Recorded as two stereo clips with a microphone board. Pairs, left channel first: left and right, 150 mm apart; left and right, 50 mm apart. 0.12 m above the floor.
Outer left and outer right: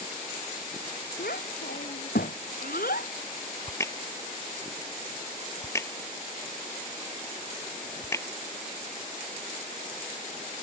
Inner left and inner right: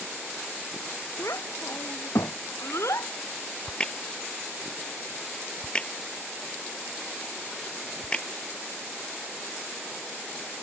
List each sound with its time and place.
1.2 s a child speaking: 85° left; by 3.1 s 75° left (ahead or behind)
3.7 s a crack: 20° left (ahead or behind)